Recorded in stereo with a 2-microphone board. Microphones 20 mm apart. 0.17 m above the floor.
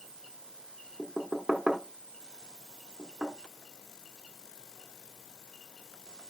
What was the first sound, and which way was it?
Knocking, 25° right (ahead or behind).